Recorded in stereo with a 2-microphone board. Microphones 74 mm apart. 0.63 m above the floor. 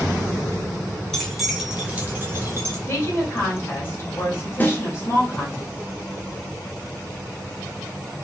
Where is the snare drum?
25° left (ahead or behind), 0.8 m.